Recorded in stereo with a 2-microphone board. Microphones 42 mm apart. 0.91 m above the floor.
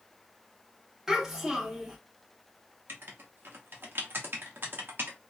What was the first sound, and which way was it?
A child speaking, 10° right (ahead or behind).